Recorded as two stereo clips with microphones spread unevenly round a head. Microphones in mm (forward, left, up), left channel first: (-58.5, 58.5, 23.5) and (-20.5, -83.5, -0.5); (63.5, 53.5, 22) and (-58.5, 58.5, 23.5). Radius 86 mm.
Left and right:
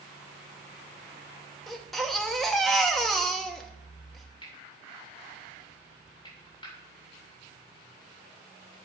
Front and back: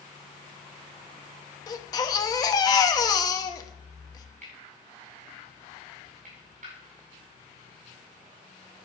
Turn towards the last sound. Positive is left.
turn(degrees=160)